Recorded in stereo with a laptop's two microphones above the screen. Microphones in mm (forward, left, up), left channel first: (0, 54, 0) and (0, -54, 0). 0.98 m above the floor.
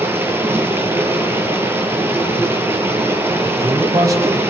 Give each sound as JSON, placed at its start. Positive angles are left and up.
{"t": 0.0, "sound": "running water", "side_deg": -20, "distance_m": 6.5}
{"t": 3.4, "sound": "a man speaking", "side_deg": -35, "distance_m": 5.5}